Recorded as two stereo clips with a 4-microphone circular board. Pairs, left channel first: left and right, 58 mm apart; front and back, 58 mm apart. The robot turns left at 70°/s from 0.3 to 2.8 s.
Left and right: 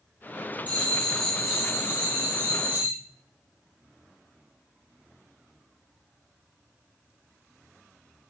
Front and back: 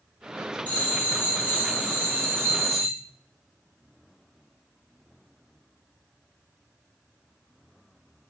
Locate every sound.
0.7 s a bell: 50° left, 0.8 m; by 2.9 s 100° right, 0.8 m